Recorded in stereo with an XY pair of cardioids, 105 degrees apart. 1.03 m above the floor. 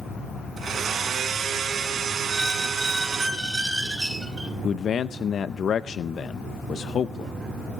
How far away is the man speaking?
About 0.5 m.